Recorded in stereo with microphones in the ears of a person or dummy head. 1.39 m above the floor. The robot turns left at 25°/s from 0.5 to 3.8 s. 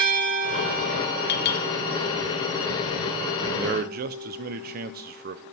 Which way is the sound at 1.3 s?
65° left (ahead or behind).